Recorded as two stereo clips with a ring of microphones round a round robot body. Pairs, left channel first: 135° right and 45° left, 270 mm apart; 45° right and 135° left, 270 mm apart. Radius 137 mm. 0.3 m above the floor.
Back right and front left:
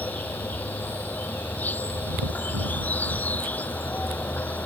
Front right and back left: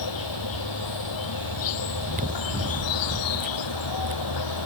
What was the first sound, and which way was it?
An insect, 50° right.